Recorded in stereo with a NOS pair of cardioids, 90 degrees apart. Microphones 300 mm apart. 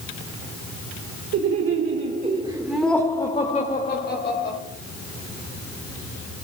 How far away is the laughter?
About 1.9 m.